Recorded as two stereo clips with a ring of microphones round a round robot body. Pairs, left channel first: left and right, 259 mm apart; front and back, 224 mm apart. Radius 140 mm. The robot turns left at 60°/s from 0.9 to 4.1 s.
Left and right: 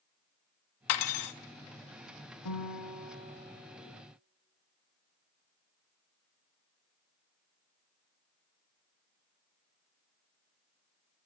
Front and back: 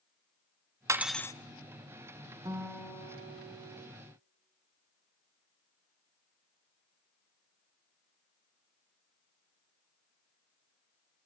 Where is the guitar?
105° left, 2.5 m; by 3.9 s 20° left, 2.5 m.